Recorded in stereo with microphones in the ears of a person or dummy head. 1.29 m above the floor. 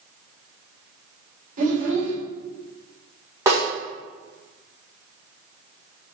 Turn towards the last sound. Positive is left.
turn(degrees=-15)  # may be behind; listen again after turning